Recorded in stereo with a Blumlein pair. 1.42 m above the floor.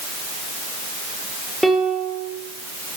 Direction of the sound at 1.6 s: Straight ahead.